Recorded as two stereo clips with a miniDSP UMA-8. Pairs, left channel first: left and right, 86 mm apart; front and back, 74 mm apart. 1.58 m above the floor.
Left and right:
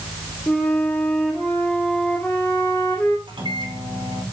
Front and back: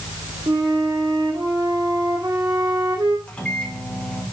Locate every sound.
0.5 s a flute: 160° left, 2 m
3.3 s a microwave: 75° right, 2.5 m